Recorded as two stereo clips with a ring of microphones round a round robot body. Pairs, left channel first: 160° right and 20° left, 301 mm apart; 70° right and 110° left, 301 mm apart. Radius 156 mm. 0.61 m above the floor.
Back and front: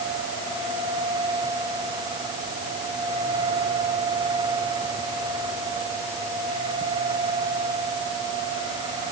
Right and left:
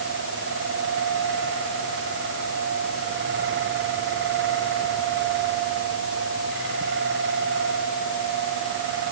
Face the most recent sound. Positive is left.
No sound to turn to.